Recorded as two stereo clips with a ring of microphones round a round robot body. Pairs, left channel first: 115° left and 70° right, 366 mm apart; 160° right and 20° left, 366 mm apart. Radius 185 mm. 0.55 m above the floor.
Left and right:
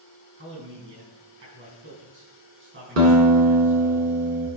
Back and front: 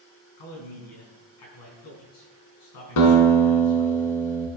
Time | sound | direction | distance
0.4 | a man speaking | 125° right | 5 m
3.0 | a guitar | 120° right | 2.5 m